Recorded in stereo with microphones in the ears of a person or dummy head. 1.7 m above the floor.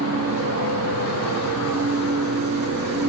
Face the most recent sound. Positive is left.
turn(degrees=-75)  # may be behind; listen again after turning